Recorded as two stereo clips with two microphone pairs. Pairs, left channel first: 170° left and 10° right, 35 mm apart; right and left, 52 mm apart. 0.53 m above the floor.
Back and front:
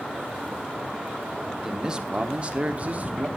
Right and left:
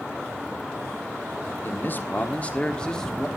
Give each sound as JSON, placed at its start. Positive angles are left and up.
{"t": 1.6, "sound": "a man speaking", "azimuth_deg": -80, "distance_m": 1.2}